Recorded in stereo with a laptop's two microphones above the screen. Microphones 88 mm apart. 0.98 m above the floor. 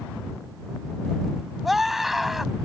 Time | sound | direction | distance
1.6 | a scream | centre (ahead or behind) | ?